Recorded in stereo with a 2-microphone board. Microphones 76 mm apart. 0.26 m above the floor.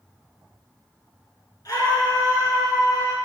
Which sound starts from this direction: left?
A scream, at 1.6 s.